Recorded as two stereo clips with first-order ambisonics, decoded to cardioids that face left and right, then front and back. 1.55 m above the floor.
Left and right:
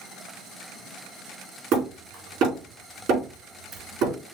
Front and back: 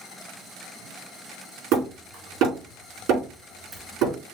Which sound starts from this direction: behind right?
Hammering, at 1.7 s.